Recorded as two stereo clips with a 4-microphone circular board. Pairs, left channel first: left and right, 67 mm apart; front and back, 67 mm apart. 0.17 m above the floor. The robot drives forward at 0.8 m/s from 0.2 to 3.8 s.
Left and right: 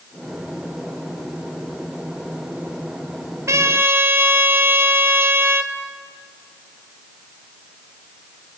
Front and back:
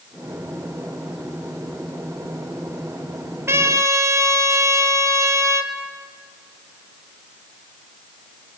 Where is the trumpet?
130° right, 0.9 m; by 5.7 s 140° right, 1.1 m.